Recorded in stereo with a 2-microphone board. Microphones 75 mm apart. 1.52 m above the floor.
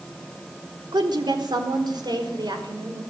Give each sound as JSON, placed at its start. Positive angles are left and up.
{"t": 0.9, "sound": "a woman speaking", "side_deg": -75, "distance_m": 4.0}